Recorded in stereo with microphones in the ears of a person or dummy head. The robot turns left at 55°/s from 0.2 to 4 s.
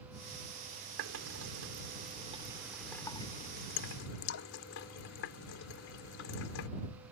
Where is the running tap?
75° right (ahead or behind); by 6.7 s 65° left (ahead or behind).